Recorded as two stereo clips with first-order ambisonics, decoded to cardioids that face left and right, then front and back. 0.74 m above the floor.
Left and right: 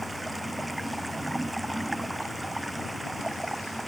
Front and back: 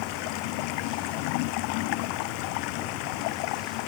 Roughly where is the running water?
Ahead.